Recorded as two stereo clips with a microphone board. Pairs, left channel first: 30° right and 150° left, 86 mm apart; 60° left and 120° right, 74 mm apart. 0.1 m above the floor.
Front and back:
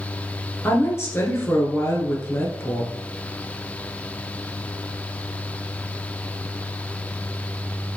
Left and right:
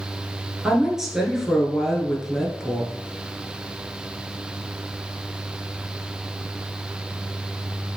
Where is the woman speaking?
40° right, 1.4 m.